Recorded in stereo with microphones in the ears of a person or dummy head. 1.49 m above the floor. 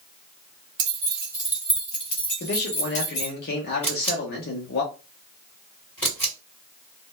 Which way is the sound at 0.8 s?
25° right (ahead or behind).